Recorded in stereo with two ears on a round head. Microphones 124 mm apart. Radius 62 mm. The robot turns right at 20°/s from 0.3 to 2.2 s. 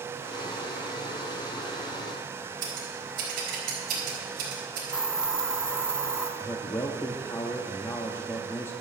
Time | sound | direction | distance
2.6 | scissors | 75° right (ahead or behind) | 4 m
4.9 | a hiss | 5° right (ahead or behind) | 0.8 m
6.4 | a man speaking | 20° left (ahead or behind) | 0.7 m